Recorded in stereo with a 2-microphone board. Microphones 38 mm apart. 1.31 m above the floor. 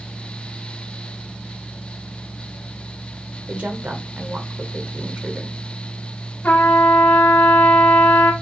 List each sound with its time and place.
3.5 s a woman speaking: 50° right (ahead or behind), 1.0 m
6.4 s a trumpet: 50° left (ahead or behind), 1.2 m